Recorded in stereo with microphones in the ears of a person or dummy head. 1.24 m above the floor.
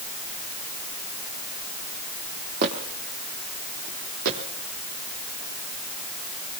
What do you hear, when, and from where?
2.6 s footsteps: 50° right (ahead or behind), 3.5 m; by 4.4 s 65° right (ahead or behind), 4 m